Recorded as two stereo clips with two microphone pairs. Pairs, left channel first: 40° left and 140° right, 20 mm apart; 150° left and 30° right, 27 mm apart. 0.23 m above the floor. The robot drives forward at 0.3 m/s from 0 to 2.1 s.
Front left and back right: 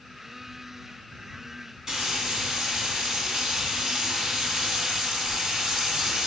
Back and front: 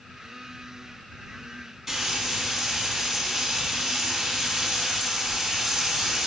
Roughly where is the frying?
Behind right.